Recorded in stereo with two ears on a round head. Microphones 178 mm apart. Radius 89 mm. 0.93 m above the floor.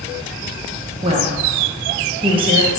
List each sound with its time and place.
1.0 s a woman speaking: 25° right (ahead or behind), 0.6 m